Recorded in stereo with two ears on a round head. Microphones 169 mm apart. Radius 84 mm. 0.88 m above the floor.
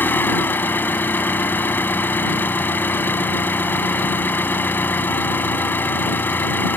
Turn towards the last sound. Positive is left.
turn(degrees=10)  # may be behind; listen again after turning